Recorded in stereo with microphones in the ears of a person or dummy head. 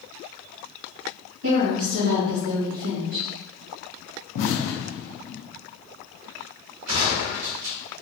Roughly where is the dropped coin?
No dropped coin in this recording.